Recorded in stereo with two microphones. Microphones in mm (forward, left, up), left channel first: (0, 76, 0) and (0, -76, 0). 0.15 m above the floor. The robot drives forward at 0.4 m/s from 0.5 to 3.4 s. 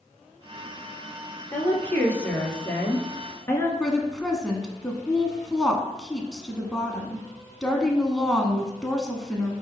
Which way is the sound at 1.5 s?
10° left (ahead or behind).